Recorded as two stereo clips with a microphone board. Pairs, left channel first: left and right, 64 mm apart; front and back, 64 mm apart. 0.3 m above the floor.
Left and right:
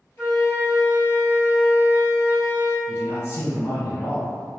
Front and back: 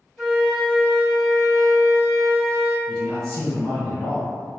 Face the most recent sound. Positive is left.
turn(degrees=75)